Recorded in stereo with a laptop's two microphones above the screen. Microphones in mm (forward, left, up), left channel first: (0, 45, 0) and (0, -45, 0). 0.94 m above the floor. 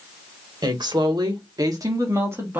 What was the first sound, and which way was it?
A woman speaking, 55° right (ahead or behind).